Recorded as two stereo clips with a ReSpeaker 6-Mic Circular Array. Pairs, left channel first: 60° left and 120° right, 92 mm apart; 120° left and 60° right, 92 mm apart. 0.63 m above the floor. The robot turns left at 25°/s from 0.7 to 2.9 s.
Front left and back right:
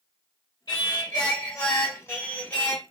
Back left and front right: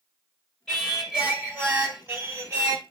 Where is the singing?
40° left, 2.0 m; by 2.8 s 15° right, 2.0 m.